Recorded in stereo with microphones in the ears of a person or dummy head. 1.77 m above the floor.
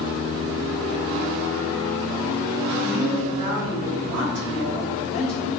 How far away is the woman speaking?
About 0.6 m.